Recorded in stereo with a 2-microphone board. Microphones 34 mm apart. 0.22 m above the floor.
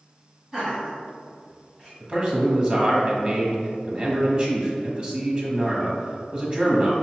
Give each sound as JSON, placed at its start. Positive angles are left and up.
{"t": 0.5, "sound": "laughter", "side_deg": -10, "distance_m": 1.6}
{"t": 2.0, "sound": "a man speaking", "side_deg": -30, "distance_m": 1.1}